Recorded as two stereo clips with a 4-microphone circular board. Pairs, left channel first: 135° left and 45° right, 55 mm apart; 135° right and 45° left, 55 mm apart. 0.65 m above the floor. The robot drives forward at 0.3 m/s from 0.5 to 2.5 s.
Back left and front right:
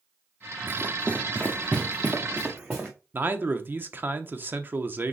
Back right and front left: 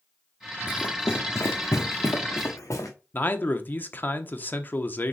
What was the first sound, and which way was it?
Running footsteps, 90° right.